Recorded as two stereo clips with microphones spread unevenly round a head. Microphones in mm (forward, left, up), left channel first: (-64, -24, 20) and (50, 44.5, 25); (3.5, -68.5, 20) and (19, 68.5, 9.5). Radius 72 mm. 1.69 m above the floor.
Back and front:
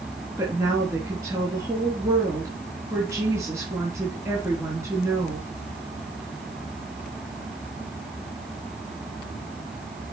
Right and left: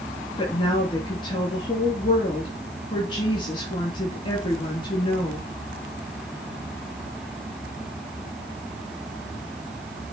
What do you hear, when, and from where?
0.4 s a woman speaking: 40° right, 3 m